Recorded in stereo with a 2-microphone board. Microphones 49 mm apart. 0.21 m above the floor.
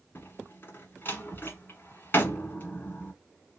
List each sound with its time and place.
0.1 s a door slam: 45° left (ahead or behind), 1.3 m